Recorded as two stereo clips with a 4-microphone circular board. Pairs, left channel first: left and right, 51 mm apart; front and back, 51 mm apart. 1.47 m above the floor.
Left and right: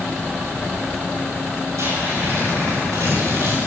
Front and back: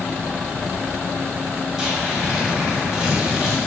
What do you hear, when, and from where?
1.8 s tearing paper: 100° right, 8 m